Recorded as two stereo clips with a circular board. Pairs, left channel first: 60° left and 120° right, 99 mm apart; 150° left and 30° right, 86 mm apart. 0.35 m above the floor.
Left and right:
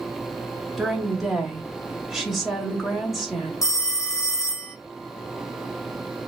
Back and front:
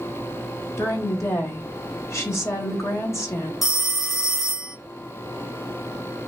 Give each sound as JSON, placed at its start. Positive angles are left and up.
{"t": 0.8, "sound": "a woman speaking", "azimuth_deg": 155, "distance_m": 1.1}
{"t": 3.6, "sound": "a phone ringing", "azimuth_deg": 55, "distance_m": 0.7}